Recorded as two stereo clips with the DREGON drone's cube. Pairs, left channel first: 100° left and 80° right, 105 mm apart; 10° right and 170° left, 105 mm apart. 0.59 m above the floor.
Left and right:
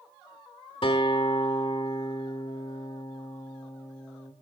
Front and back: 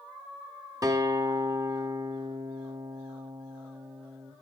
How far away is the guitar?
About 1.3 m.